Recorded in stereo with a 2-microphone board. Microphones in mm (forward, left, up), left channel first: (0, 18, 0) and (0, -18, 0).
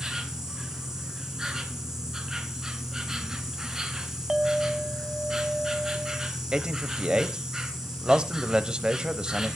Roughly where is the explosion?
I don't hear an explosion.